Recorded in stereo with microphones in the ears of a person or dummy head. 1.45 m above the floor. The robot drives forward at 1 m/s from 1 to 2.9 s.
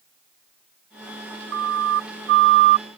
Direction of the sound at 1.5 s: 70° right (ahead or behind).